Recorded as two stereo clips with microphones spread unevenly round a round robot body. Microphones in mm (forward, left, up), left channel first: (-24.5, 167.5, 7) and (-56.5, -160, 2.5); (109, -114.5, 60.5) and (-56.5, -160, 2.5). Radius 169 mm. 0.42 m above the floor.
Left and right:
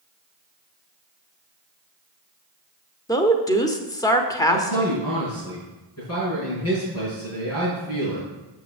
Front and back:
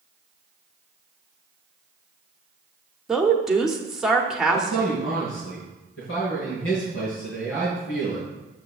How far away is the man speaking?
About 4.5 m.